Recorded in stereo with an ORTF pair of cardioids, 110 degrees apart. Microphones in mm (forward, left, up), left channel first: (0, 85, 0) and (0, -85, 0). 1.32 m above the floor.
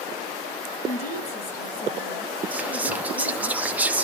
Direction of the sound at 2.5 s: 10° right.